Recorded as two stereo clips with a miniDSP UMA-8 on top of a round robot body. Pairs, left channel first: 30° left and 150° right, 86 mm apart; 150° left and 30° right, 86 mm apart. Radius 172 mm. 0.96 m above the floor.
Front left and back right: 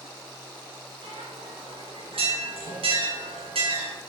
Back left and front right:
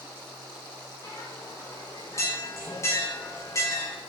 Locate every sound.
1.0 s a bell: 150° right, 5.5 m